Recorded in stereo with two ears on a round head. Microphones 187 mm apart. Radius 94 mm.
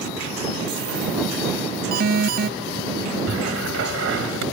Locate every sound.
1.9 s an alarm: 45° right (ahead or behind)
3.3 s a cupboard door: 65° right (ahead or behind)